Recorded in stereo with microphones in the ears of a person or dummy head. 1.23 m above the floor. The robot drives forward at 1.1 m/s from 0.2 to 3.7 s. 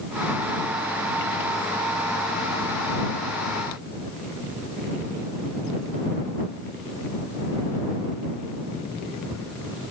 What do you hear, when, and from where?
Only background noise.